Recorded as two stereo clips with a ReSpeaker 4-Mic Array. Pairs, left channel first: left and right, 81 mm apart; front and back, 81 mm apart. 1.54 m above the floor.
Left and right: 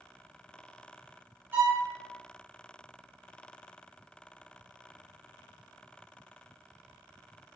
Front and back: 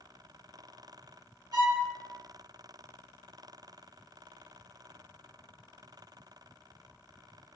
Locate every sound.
1.5 s a violin: 155° right, 1.3 m